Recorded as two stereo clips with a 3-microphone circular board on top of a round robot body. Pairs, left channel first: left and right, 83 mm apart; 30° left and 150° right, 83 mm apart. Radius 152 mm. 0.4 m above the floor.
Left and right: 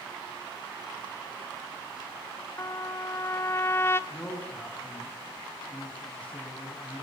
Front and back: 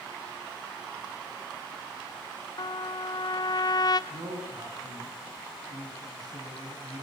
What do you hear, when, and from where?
2.6 s a trumpet: 35° left, 1.3 m
4.1 s a man speaking: 165° left, 6.5 m